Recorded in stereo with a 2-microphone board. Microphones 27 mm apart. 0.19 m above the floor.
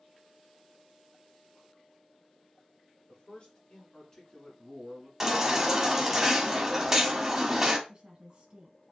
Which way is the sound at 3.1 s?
40° left (ahead or behind).